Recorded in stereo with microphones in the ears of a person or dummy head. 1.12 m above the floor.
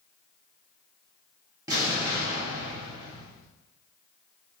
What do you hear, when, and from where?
1.7 s an explosion: 20° right (ahead or behind), 1.3 m